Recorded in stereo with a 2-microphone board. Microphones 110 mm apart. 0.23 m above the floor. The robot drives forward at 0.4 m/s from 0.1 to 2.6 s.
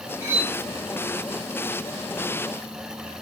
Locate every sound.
0.2 s cutlery clinking: 15° right (ahead or behind), 1.3 m